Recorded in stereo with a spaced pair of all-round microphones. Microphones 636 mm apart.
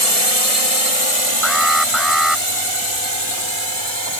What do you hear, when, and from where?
0.0 s a drone: 65° left (ahead or behind); by 4.2 s 45° left (ahead or behind)
1.4 s an alarm: centre (ahead or behind)